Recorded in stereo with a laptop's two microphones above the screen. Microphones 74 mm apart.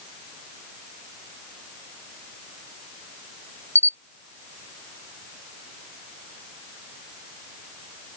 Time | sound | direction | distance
3.8 | a camera shutter | 40° right (ahead or behind) | ?